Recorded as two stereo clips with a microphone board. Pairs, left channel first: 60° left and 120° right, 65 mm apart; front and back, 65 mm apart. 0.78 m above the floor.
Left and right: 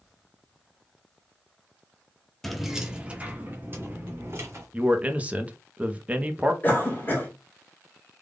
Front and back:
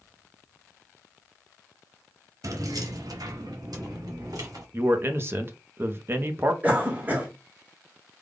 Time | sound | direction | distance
2.4 | keys jangling | 150° left | 0.7 m
4.7 | a man speaking | 170° right | 0.7 m
6.6 | a cough | 120° left | 1.6 m